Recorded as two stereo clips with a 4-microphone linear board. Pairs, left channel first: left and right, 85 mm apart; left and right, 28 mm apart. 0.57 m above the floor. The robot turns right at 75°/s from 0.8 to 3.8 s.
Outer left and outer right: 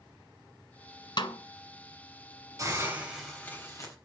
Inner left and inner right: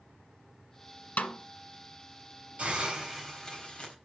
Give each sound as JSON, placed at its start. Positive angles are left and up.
{"t": 1.2, "sound": "a snare drum", "side_deg": 60, "distance_m": 1.5}
{"t": 2.6, "sound": "a hiss", "azimuth_deg": -45, "distance_m": 3.5}